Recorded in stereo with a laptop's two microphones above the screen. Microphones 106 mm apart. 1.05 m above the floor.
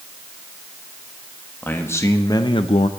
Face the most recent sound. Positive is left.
turn(degrees=75)  # may be behind; listen again after turning